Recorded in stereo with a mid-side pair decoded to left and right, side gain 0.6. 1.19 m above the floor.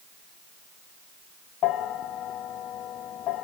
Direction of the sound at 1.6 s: 55° left.